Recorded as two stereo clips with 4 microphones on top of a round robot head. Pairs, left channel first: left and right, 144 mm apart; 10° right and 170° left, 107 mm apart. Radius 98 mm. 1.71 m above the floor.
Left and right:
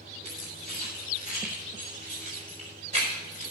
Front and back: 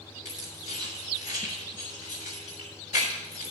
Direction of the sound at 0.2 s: 35° right.